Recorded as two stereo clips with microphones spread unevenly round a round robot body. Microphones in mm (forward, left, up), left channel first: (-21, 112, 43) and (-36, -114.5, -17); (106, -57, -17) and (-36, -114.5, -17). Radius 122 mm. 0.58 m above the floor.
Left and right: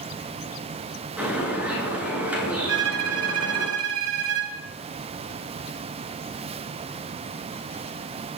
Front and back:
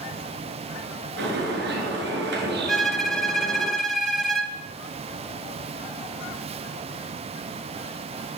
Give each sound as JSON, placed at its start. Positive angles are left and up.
{"t": 1.2, "sound": "a bird", "azimuth_deg": -175, "distance_m": 8.0}
{"t": 2.7, "sound": "a violin", "azimuth_deg": -65, "distance_m": 4.0}